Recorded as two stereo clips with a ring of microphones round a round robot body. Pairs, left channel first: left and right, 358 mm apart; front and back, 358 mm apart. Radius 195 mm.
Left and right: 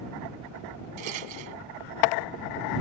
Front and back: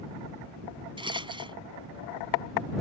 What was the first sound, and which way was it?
A rattle, 105° right.